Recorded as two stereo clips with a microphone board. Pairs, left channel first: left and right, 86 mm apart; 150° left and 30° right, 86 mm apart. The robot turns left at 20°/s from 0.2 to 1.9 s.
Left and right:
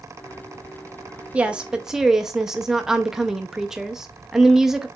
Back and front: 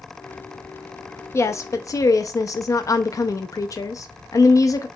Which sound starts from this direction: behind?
A woman speaking, at 1.3 s.